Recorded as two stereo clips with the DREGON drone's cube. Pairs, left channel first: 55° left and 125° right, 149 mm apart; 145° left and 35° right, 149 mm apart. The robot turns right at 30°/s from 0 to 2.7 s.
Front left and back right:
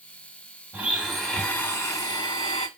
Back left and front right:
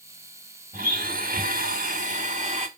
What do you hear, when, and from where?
0.7 s a blender: 50° right, 1.1 m; by 2.7 s 10° left, 1.1 m